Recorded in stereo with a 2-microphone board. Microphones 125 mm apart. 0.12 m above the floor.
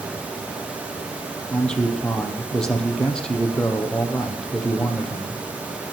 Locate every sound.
1.5 s a man speaking: 5° left (ahead or behind), 3 m